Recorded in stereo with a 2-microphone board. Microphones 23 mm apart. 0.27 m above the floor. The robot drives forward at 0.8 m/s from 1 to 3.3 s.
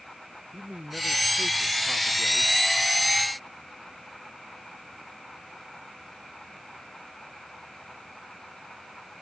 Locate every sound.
0.5 s a man speaking: 60° right (ahead or behind)